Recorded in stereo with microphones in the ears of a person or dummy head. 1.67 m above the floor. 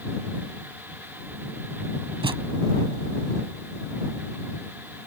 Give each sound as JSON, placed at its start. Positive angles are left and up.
{"t": 2.2, "sound": "a thud", "side_deg": -25}